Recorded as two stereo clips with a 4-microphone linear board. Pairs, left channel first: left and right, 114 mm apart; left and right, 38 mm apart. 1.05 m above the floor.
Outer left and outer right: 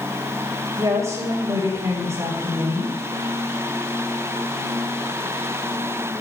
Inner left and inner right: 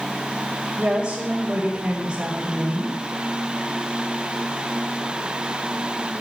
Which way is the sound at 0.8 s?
30° right (ahead or behind).